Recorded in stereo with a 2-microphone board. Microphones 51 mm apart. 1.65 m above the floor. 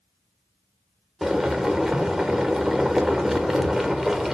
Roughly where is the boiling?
Centre.